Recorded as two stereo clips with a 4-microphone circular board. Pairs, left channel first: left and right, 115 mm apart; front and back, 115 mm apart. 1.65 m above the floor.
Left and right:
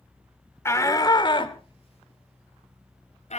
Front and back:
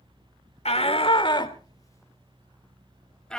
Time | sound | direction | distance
0.7 | a shout | 25° left | 1.9 m